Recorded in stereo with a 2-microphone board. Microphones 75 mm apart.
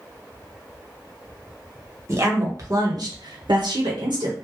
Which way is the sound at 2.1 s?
35° right (ahead or behind).